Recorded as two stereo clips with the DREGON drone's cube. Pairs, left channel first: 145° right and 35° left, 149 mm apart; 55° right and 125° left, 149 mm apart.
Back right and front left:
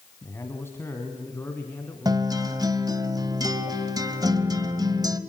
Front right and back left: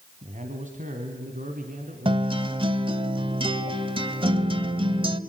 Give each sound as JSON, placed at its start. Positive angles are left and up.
{"t": 0.2, "sound": "a man speaking", "azimuth_deg": 145, "distance_m": 1.9}
{"t": 2.0, "sound": "a guitar", "azimuth_deg": 85, "distance_m": 1.1}